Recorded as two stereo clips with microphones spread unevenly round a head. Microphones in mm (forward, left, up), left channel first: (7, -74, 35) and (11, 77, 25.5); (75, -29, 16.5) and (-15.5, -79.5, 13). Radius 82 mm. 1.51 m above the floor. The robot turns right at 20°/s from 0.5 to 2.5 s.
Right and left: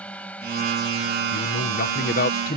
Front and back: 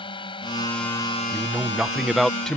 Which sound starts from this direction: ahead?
A drone, at 0.0 s.